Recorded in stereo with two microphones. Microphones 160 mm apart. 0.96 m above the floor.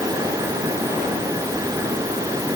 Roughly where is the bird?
I don't hear a bird.